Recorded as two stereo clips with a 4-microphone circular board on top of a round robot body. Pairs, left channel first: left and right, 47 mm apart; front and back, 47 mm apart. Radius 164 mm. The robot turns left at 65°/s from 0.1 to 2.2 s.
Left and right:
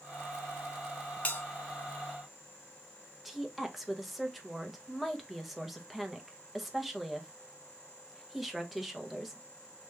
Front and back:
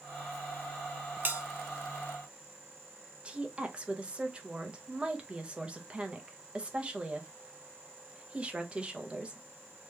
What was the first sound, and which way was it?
A bell, 145° left.